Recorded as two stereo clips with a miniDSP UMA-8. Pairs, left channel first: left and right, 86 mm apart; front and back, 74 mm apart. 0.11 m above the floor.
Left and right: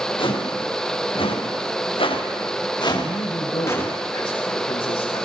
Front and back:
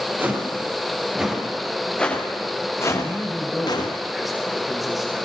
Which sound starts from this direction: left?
A man speaking, at 3.0 s.